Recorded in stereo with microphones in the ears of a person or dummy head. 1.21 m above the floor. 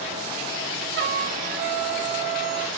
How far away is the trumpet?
About 1.2 m.